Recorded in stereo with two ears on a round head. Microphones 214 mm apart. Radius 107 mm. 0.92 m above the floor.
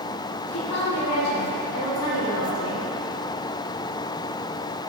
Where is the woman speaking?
75° left (ahead or behind), 2.5 m; by 2.9 s 65° left (ahead or behind), 3 m.